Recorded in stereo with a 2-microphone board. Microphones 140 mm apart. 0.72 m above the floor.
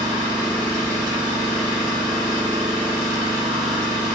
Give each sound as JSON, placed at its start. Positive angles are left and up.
{"t": 0.0, "sound": "an engine running", "side_deg": -65, "distance_m": 1.7}